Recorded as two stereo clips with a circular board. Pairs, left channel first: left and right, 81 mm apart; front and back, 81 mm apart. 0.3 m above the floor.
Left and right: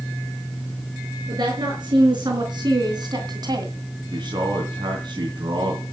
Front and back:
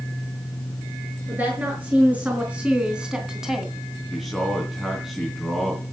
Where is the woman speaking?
110° right, 5.5 m; by 3.7 s 90° right, 2 m.